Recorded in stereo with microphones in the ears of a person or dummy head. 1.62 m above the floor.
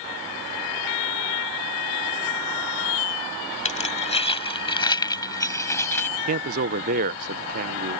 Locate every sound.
3.6 s keys jangling: 35° left (ahead or behind); by 6.1 s 10° left (ahead or behind)
6.3 s a man speaking: 45° right (ahead or behind)